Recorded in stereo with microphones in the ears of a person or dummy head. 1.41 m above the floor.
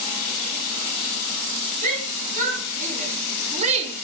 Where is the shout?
40° right (ahead or behind), 4 m; by 4.0 s 30° right (ahead or behind), 0.9 m.